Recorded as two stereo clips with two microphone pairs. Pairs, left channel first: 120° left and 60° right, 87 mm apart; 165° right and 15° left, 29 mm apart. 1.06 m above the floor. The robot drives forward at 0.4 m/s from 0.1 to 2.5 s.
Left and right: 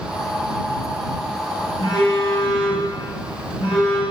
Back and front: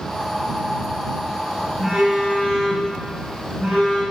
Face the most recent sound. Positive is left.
turn(degrees=110)